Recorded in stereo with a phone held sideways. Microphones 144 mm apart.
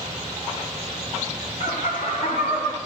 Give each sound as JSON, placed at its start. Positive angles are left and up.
{"t": 1.6, "sound": "laughter", "side_deg": 70, "distance_m": 1.4}